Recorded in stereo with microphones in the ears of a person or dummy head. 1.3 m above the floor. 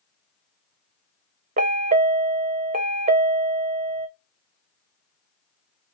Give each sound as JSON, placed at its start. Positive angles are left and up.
{"t": 1.6, "sound": "a chime", "side_deg": -35, "distance_m": 0.5}